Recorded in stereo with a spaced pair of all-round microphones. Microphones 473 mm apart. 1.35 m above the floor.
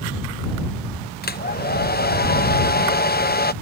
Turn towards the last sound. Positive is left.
turn(degrees=20)  # may be behind; listen again after turning